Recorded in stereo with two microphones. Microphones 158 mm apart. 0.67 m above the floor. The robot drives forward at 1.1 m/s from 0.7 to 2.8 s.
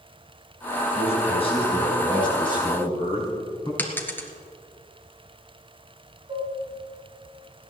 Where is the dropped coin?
10° left (ahead or behind), 1.6 m.